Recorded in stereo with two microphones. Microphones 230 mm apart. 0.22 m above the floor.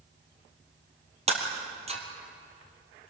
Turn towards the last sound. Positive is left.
turn(degrees=-30)  # may be behind; listen again after turning